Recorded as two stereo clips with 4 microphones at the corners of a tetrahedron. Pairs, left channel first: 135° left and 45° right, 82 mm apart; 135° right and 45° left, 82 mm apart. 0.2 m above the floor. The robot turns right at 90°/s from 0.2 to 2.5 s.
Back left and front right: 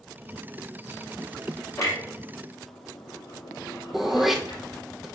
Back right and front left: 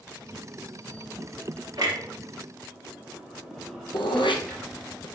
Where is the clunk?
80° left, 4 m; by 4.6 s 145° left, 4 m.